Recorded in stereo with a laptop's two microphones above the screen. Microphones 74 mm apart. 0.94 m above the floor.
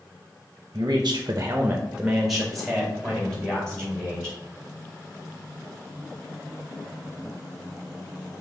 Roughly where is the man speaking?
Right.